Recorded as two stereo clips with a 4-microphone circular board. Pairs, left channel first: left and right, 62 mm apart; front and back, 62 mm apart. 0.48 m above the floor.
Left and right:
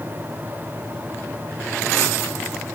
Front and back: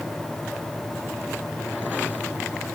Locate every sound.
Only background noise.